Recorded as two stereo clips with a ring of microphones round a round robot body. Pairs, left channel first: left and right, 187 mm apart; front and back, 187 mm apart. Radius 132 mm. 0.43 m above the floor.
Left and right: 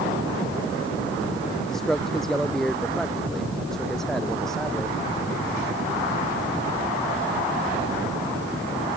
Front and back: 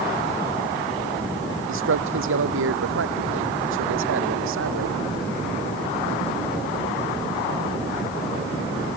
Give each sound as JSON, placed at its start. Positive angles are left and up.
{"t": 1.7, "sound": "a man speaking", "azimuth_deg": 180}